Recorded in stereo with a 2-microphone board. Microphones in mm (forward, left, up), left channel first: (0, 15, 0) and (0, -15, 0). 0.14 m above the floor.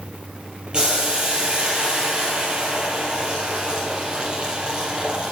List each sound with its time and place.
0.7 s boiling: 25° right (ahead or behind), 4 m